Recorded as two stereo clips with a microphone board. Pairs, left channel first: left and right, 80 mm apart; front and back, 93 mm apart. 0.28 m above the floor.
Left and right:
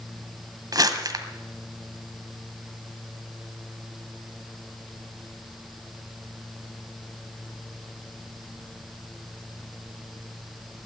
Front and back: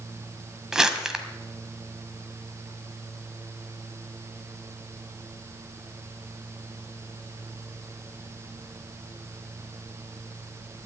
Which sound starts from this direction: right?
Crumpling, at 0.7 s.